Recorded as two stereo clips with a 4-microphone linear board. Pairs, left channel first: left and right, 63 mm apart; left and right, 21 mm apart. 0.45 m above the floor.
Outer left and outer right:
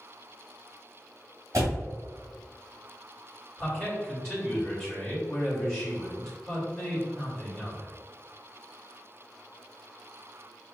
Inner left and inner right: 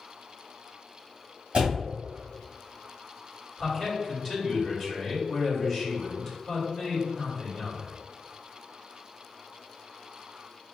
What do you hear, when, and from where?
1.5 s a door slam: 60° right (ahead or behind), 1.9 m
3.6 s a man speaking: 10° left (ahead or behind), 1.6 m